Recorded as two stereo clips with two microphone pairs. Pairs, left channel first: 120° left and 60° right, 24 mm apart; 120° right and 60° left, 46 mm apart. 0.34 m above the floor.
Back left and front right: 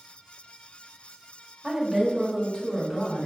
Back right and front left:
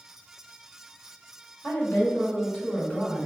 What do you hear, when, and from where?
1.6 s a woman speaking: 130° right, 1.3 m; by 3.3 s 170° right, 2 m